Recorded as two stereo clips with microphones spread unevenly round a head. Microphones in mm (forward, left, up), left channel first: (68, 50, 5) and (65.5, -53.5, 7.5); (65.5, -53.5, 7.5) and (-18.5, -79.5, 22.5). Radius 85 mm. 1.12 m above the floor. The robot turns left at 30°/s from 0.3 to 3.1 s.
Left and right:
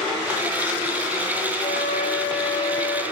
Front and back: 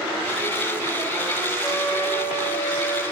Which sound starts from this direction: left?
A flute, at 1.6 s.